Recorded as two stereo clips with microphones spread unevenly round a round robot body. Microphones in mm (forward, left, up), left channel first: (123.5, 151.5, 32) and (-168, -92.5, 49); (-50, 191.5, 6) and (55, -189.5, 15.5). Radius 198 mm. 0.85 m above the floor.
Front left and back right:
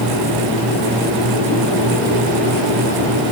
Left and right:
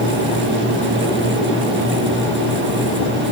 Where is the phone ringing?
No phone ringing in this recording.